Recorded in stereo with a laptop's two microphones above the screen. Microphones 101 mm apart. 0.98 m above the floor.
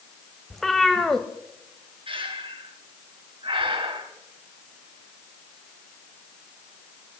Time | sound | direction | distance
0.5 | a cat meowing | 5° left (ahead or behind) | 0.9 m
2.1 | breathing | 55° right (ahead or behind) | 1.9 m